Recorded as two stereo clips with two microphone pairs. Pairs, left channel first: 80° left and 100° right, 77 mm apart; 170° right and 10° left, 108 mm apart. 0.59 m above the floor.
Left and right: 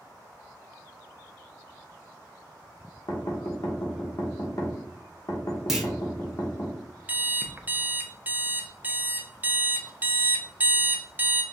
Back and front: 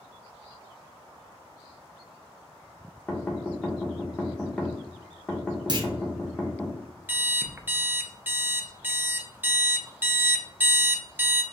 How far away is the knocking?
About 1.0 m.